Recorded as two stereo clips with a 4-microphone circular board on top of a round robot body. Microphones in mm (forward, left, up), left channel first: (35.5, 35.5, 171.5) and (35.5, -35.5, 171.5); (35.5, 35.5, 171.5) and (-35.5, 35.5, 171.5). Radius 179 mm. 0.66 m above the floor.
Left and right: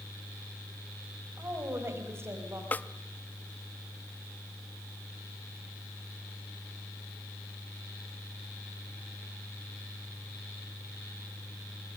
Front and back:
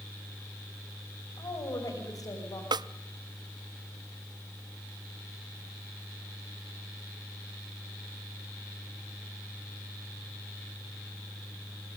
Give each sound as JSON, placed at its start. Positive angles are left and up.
{"t": 1.4, "sound": "a woman speaking", "azimuth_deg": -35, "distance_m": 5.5}
{"t": 2.7, "sound": "a snare drum", "azimuth_deg": 155, "distance_m": 0.5}